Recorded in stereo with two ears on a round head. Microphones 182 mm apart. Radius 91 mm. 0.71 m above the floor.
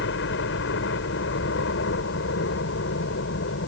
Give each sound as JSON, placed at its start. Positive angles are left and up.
{"t": 0.0, "sound": "a helicopter", "side_deg": 60}